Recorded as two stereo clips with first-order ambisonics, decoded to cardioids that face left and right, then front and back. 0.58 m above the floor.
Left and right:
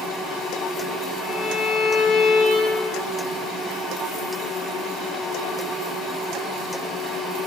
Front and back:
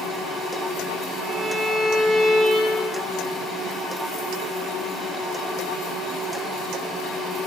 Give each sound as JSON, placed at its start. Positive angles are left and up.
{"t": 1.2, "sound": "a violin", "azimuth_deg": 100, "distance_m": 0.6}